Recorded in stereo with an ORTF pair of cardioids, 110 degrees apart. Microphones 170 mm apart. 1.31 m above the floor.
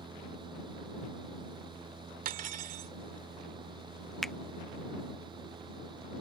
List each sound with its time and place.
0.0 s a fan: 30° right
2.2 s cutlery clinking: 60° right
4.2 s a finger snap: straight ahead